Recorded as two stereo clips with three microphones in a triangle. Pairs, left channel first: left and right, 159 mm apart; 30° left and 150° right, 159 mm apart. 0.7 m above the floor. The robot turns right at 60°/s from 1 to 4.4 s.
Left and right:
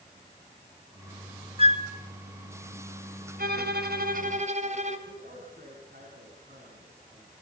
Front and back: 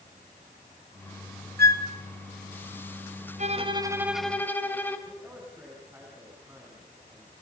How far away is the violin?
About 2.5 m.